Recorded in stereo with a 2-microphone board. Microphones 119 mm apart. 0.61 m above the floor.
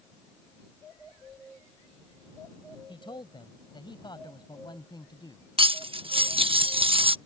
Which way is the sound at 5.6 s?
50° right (ahead or behind).